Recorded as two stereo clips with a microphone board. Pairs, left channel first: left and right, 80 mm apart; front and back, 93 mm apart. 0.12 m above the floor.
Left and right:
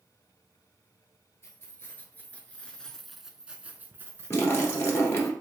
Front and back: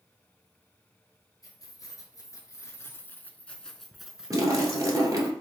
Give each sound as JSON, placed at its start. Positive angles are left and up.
{"t": 1.4, "sound": "keys jangling", "azimuth_deg": 40, "distance_m": 1.4}
{"t": 4.3, "sound": "a splash", "azimuth_deg": 140, "distance_m": 1.7}